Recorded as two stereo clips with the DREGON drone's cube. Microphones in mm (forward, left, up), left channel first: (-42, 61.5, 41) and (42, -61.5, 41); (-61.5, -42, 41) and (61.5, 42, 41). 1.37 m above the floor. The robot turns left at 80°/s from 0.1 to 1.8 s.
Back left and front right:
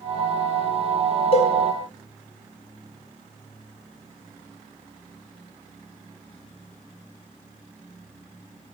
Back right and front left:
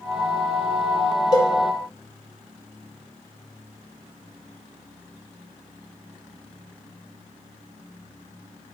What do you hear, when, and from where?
1.3 s a cowbell: 160° left, 0.6 m; by 1.5 s 145° left, 0.6 m